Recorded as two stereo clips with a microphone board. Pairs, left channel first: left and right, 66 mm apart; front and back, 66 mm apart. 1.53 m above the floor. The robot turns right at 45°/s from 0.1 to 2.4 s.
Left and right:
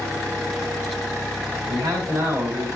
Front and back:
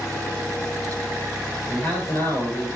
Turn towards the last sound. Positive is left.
turn(degrees=-35)